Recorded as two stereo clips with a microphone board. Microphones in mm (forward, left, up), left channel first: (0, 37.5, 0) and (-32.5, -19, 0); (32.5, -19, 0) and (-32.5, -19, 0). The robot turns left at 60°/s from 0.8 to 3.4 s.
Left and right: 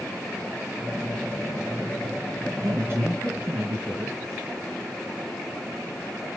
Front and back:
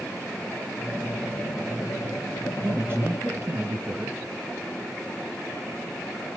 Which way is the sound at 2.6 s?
130° right.